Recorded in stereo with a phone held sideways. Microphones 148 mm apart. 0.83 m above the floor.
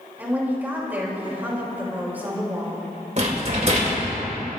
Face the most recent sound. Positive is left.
turn(degrees=-50)  # may be behind; listen again after turning